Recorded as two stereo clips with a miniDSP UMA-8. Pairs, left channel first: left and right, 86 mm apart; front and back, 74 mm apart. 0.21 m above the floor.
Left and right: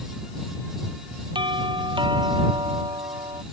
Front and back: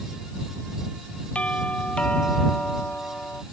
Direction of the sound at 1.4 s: 75° right.